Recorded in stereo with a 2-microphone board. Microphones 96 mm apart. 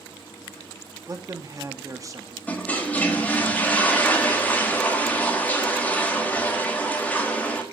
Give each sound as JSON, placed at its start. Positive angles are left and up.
{"t": 1.1, "sound": "a man speaking", "side_deg": -35, "distance_m": 0.9}
{"t": 2.5, "sound": "a toilet flushing", "side_deg": 15, "distance_m": 1.4}